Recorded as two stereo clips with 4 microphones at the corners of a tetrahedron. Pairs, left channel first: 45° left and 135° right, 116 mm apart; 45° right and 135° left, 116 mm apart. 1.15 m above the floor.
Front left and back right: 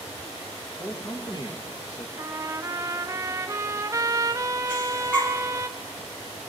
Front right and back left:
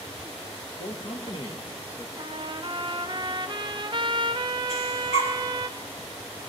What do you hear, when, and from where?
0.8 s a man speaking: 30° right, 1.7 m; by 2.1 s 25° left, 1.5 m
2.2 s a trumpet: 170° left, 0.5 m
4.7 s breathing: 35° right, 3 m